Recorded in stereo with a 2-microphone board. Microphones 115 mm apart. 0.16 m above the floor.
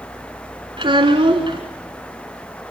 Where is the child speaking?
45° right (ahead or behind), 1.5 m.